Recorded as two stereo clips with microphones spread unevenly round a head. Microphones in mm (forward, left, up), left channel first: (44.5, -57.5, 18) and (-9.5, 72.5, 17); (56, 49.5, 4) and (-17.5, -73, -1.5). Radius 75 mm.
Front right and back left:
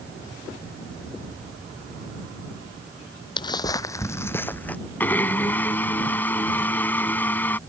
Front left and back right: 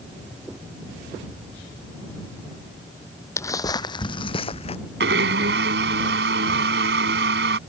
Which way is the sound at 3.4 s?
10° right.